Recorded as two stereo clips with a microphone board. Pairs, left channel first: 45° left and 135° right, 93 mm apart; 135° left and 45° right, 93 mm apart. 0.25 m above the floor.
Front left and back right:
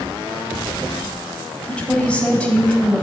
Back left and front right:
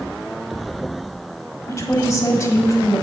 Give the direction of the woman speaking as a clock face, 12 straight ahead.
8 o'clock.